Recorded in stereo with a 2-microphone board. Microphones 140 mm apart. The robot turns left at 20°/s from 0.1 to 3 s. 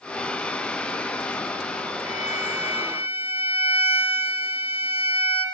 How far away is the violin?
About 3.5 m.